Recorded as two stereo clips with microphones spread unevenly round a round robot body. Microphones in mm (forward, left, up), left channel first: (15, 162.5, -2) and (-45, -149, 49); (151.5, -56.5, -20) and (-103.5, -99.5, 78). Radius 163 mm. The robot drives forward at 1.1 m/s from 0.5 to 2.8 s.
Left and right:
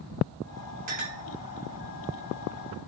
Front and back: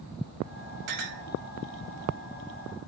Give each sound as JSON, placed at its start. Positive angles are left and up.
{"t": 0.9, "sound": "a clink", "azimuth_deg": -165, "distance_m": 2.0}